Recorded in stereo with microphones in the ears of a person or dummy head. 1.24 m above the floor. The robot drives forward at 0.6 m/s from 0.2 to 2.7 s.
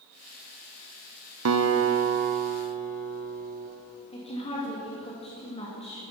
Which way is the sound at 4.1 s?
30° left (ahead or behind).